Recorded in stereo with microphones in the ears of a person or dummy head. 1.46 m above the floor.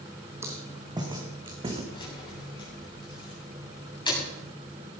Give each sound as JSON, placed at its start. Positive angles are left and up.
{"t": 0.4, "sound": "footsteps", "side_deg": -10, "distance_m": 3.0}
{"t": 1.9, "sound": "keys jangling", "side_deg": 25, "distance_m": 8.5}